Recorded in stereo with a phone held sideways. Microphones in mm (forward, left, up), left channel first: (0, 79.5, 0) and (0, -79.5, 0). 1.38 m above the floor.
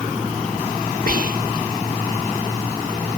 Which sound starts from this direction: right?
Whispering, at 1.1 s.